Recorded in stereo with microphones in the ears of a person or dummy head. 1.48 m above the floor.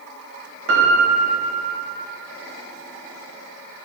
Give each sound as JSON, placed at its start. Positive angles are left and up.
{"t": 0.7, "sound": "a piano", "side_deg": -70, "distance_m": 1.0}